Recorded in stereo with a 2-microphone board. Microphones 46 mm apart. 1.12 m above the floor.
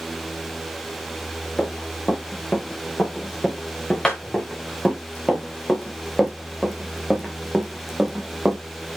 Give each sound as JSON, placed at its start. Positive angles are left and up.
{"t": 1.6, "sound": "running footsteps", "side_deg": 20, "distance_m": 6.5}